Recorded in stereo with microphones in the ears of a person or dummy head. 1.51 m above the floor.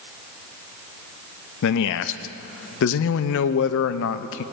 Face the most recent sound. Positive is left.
turn(degrees=75)  # may be behind; listen again after turning